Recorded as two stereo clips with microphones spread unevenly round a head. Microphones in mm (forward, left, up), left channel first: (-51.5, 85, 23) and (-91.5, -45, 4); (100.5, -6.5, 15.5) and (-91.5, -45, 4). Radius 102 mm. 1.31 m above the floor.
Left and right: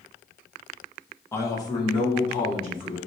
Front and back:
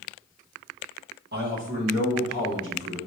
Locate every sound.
1.3 s a man speaking: 145° left, 1.4 m; by 3.0 s 120° left, 3.5 m